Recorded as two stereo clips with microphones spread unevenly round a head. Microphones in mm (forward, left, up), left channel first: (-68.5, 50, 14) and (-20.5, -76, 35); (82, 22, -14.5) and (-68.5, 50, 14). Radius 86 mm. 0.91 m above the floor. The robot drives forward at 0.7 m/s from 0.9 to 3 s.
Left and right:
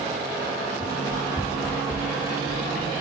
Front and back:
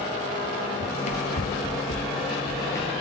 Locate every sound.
0.8 s running footsteps: 25° left, 1.1 m; by 3.0 s 70° left, 1.3 m